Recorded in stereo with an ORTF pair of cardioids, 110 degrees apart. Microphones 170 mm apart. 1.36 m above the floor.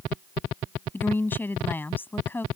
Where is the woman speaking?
10° left.